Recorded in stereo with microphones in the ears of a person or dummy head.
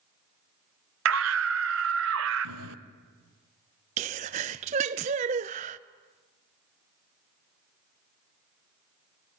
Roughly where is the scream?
Right.